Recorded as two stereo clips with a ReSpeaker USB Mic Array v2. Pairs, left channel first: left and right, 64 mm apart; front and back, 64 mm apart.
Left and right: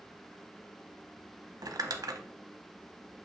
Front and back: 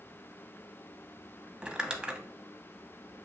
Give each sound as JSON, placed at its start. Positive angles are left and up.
{"t": 1.6, "sound": "crumpling", "azimuth_deg": -105, "distance_m": 0.6}